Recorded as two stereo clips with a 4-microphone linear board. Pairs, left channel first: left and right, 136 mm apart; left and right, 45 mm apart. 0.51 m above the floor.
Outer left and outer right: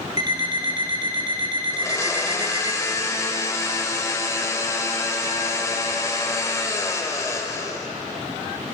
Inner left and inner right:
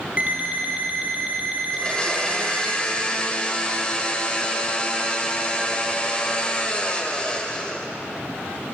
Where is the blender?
25° left (ahead or behind), 1.3 m.